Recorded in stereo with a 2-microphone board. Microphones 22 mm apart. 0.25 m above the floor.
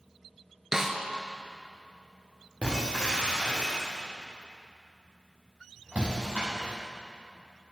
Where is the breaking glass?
80° right, 5.5 m.